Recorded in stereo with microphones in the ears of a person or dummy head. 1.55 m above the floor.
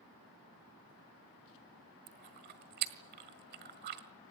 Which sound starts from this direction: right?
Chewing, at 2.1 s.